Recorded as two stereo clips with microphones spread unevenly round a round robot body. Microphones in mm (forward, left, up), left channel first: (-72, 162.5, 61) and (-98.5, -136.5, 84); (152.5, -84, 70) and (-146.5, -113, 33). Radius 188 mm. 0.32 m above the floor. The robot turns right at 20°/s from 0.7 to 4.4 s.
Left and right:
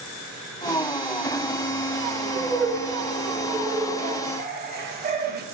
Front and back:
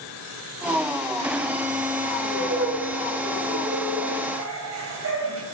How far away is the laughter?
About 2 m.